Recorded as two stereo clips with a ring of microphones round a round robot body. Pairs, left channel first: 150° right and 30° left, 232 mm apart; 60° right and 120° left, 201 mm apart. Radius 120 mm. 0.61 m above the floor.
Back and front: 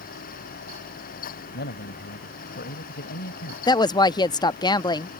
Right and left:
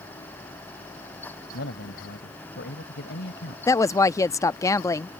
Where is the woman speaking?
110° right.